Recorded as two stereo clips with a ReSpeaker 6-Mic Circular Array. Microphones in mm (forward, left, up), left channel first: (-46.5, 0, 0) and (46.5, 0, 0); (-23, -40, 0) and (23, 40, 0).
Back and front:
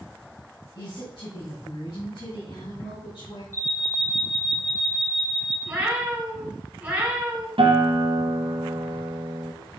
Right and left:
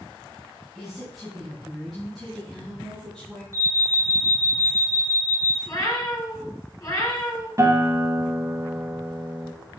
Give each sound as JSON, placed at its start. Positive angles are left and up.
{"t": 0.8, "sound": "a woman speaking", "azimuth_deg": 150, "distance_m": 2.5}
{"t": 3.5, "sound": "an alarm", "azimuth_deg": 120, "distance_m": 3.5}
{"t": 5.7, "sound": "a cat meowing", "azimuth_deg": -70, "distance_m": 3.5}
{"t": 7.6, "sound": "a guitar", "azimuth_deg": 0, "distance_m": 1.7}